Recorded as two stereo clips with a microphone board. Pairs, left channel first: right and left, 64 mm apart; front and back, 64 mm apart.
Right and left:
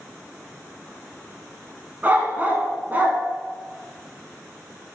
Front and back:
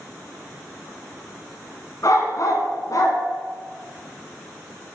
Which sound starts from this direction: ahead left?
A dog barking, at 2.0 s.